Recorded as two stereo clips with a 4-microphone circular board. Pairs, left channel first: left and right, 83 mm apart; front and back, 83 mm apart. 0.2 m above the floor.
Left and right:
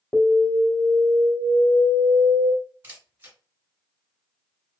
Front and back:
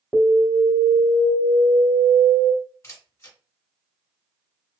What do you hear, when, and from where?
0.1 s an alarm: 160° left, 0.9 m
2.8 s a camera shutter: 40° right, 1.5 m